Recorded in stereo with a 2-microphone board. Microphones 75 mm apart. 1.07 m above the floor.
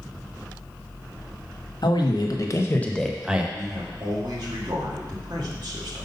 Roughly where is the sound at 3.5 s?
Right.